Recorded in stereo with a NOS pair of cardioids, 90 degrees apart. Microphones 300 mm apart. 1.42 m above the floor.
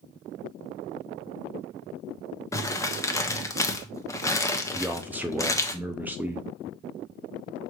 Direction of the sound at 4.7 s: 5° right.